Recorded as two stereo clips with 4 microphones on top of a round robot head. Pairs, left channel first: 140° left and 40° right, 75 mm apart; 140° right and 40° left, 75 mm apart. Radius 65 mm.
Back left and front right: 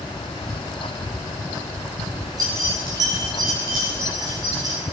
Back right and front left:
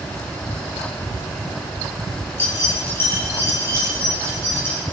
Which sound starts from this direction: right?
Keys jangling, at 2.4 s.